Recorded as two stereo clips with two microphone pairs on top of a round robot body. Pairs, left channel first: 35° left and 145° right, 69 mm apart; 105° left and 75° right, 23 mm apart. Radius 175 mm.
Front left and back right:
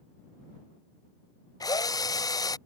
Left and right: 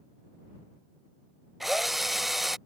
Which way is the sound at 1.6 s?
5° left.